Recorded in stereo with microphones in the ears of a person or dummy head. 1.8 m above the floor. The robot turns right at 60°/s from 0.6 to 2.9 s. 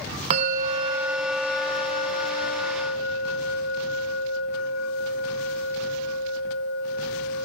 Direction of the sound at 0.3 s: 45° right.